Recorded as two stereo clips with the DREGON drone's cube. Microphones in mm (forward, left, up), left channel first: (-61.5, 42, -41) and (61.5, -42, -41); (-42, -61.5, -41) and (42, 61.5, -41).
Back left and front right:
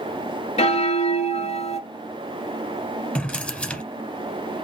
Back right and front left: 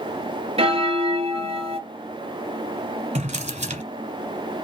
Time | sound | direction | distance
0.6 | a bell | 105° left | 0.6 m
3.1 | a drawer | 65° left | 1.2 m